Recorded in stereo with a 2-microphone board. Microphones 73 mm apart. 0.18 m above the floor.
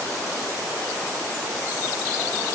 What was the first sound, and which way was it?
Only background noise.